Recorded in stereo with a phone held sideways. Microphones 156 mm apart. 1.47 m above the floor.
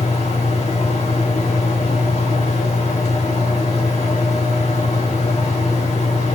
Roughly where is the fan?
Left.